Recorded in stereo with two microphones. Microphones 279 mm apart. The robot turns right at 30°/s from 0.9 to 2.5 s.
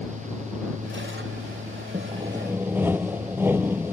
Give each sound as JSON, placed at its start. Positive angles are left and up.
{"t": 1.9, "sound": "sawing", "side_deg": -25}